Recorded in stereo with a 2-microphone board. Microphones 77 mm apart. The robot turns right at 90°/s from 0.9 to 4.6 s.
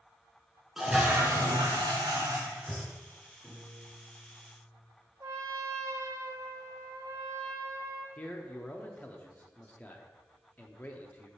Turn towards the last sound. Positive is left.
turn(degrees=20)  # may be behind; listen again after turning